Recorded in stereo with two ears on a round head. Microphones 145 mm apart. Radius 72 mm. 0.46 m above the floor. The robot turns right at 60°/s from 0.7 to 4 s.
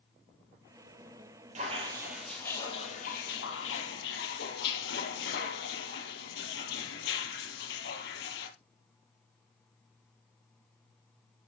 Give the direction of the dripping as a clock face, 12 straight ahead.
1 o'clock.